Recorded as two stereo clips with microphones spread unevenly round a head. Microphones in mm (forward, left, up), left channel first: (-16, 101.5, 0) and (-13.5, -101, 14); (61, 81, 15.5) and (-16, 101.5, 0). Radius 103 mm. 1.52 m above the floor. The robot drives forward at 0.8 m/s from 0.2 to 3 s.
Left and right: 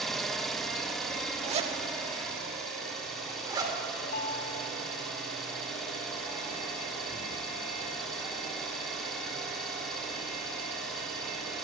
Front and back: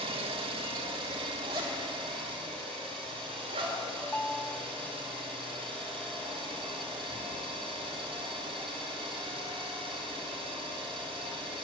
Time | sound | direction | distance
0.0 | an engine running | straight behind | 1.4 m
1.4 | a zipper | 140° right | 1.6 m
4.0 | a ringtone | 45° left | 1.0 m